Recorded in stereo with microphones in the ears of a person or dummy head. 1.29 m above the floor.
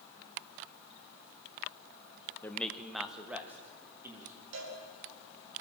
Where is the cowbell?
70° right (ahead or behind), 4 m.